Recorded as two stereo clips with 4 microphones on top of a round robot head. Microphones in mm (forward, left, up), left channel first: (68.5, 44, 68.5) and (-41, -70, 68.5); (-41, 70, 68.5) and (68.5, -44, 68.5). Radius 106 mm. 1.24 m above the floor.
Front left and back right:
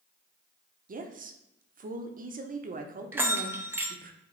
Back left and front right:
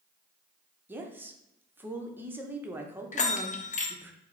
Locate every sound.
0.9 s a woman speaking: 120° right, 0.7 m
3.1 s a bell: 155° left, 0.7 m